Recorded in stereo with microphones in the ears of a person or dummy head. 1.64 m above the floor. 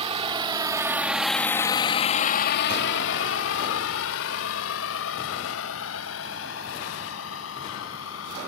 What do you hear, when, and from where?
0.0 s a vehicle: 35° right (ahead or behind); by 8.5 s 75° left (ahead or behind)